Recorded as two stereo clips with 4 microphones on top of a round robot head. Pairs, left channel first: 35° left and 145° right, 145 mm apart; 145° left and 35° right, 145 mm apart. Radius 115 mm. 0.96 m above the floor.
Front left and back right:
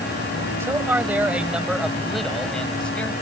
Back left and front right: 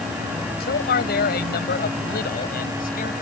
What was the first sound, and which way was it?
A man speaking, 140° left.